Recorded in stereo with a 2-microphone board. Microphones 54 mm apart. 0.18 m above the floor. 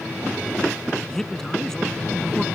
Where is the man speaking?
10° left (ahead or behind).